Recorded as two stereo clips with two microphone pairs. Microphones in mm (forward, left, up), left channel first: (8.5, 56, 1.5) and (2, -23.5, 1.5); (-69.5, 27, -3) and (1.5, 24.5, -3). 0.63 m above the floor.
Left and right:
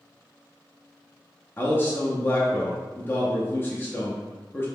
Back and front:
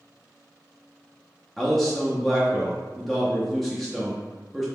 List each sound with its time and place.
1.6 s a man speaking: 100° left, 0.6 m